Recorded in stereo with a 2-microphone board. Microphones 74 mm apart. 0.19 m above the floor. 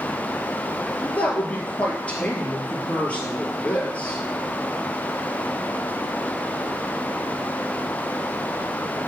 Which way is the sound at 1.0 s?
20° left (ahead or behind).